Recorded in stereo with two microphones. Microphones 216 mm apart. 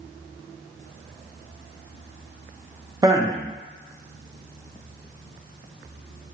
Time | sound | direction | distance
3.0 | a man speaking | 15° right (ahead or behind) | 0.5 m